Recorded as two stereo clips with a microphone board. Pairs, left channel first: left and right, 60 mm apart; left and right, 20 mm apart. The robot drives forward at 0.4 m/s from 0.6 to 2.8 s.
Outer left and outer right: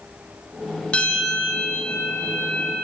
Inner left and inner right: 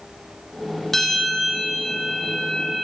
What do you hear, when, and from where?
0.9 s a bell: 20° left (ahead or behind), 9.5 m